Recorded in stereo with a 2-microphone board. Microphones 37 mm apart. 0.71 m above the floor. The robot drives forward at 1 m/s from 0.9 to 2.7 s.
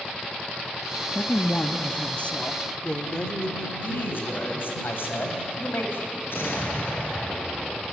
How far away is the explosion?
About 5 m.